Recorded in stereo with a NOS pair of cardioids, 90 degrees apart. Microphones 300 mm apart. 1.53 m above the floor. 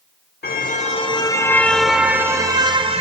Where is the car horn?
30° left, 2.5 m; by 3.0 s 20° right, 3.5 m.